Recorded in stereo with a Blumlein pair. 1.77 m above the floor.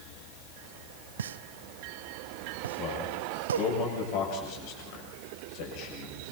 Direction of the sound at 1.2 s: 65° right.